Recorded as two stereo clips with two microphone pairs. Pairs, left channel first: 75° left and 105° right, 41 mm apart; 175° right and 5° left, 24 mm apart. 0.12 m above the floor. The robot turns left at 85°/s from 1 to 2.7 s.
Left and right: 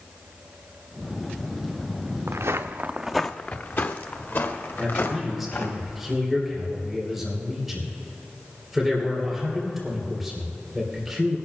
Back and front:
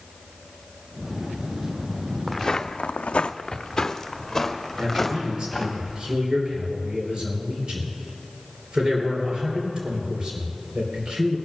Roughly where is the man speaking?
Ahead.